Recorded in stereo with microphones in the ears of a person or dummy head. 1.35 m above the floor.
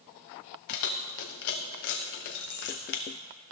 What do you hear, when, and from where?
0.7 s keys jangling: 50° left (ahead or behind), 0.5 m